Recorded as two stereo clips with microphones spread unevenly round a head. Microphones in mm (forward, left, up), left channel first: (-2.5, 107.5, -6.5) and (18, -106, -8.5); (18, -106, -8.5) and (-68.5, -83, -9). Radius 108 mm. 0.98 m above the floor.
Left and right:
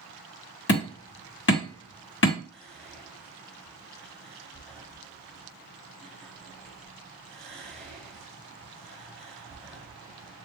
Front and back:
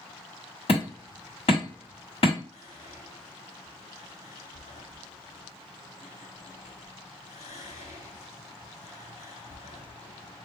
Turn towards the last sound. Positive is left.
turn(degrees=10)